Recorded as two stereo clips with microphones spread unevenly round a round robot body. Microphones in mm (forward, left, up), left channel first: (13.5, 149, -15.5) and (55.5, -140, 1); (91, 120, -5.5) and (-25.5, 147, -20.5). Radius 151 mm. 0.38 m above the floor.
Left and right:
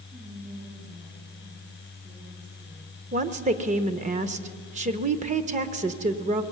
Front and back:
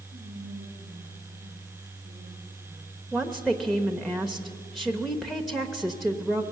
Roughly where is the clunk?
No clunk in this recording.